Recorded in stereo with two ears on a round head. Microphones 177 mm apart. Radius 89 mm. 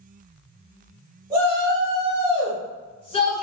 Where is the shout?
Centre (ahead or behind), 1.5 m; by 3.4 s 30° left (ahead or behind), 1.1 m.